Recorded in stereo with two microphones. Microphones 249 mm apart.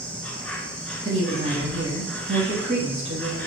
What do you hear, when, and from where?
0.0 s an insect: 5° left (ahead or behind), 1.1 m
1.1 s a woman speaking: 25° right (ahead or behind), 1.1 m